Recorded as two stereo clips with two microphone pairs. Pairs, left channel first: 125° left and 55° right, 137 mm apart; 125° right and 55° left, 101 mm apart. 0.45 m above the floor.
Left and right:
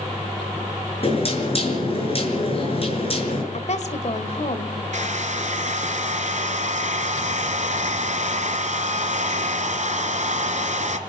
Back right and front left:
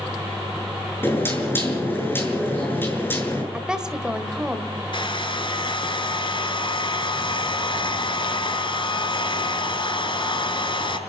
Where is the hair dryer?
90° right, 1.6 m.